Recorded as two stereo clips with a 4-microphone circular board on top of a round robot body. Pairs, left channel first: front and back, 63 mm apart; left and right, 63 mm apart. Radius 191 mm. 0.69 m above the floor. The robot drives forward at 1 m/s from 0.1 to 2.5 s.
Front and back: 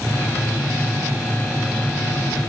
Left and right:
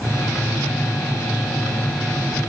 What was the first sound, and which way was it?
Only background noise.